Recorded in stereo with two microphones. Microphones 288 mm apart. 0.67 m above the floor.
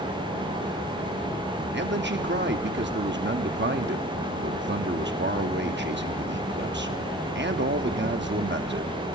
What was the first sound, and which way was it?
A man speaking, 40° right (ahead or behind).